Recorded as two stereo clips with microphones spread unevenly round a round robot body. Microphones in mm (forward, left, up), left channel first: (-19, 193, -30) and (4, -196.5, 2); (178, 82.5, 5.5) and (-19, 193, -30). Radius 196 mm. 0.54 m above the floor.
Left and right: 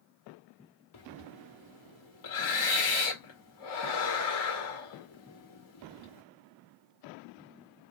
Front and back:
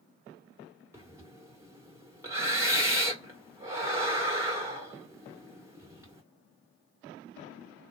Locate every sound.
0.9 s breathing: 85° left, 1.9 m